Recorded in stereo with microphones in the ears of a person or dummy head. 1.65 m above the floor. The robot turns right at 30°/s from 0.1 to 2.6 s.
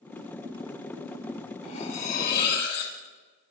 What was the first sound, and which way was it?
Cutlery clinking, 30° left (ahead or behind).